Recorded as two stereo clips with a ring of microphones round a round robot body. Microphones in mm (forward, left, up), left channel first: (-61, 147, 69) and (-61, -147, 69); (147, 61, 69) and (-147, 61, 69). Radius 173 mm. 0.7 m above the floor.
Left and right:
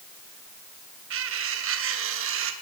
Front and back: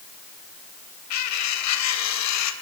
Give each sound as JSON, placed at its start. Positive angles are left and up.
{"t": 1.1, "sound": "cutlery clinking", "azimuth_deg": -40, "distance_m": 2.5}